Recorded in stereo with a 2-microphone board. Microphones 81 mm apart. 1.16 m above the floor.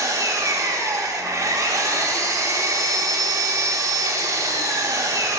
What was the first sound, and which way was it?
An engine running, 40° right (ahead or behind).